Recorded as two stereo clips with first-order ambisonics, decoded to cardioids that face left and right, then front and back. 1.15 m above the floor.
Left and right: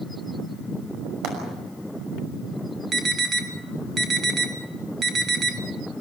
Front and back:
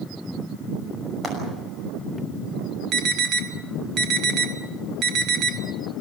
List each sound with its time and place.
1.2 s frying: 115° right, 6 m
2.9 s an alarm: 150° right, 1.6 m